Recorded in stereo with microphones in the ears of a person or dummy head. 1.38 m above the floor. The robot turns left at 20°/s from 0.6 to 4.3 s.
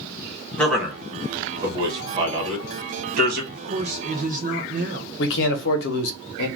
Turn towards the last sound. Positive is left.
turn(degrees=75)  # may be behind; listen again after turning